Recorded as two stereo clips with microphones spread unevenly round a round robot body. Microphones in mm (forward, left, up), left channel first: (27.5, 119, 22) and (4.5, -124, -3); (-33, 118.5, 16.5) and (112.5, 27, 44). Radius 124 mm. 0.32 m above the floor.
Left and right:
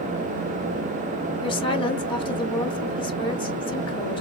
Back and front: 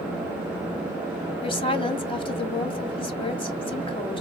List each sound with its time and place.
1.4 s a woman speaking: 150° left, 1.3 m